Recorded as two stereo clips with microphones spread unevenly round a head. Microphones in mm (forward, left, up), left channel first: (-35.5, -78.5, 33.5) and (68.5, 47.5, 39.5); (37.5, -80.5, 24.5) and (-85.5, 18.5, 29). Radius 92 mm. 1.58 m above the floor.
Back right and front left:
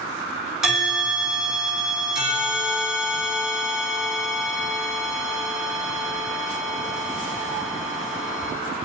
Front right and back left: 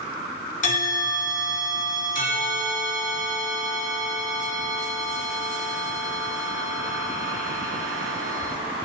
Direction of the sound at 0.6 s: 30° right.